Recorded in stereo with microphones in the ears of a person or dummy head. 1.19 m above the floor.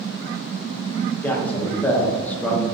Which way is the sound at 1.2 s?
10° left (ahead or behind).